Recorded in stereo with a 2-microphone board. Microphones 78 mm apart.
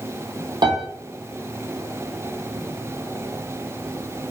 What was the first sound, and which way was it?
A piano, 75° right (ahead or behind).